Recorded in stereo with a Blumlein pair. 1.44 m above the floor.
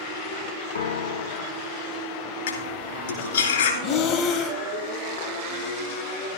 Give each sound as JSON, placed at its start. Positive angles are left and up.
{"t": 0.8, "sound": "a piano", "azimuth_deg": 65, "distance_m": 0.7}
{"t": 2.5, "sound": "cutlery clinking", "azimuth_deg": 60, "distance_m": 2.5}
{"t": 3.8, "sound": "breathing", "azimuth_deg": 35, "distance_m": 1.1}